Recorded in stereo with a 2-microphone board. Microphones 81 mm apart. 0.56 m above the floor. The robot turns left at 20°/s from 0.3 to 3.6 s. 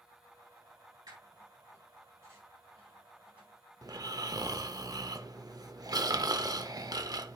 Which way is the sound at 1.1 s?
60° right (ahead or behind).